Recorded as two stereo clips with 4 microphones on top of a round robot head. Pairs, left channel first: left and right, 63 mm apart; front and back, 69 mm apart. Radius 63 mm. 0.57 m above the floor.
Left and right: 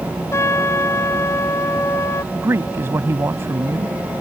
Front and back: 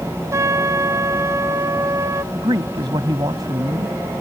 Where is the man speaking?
140° right.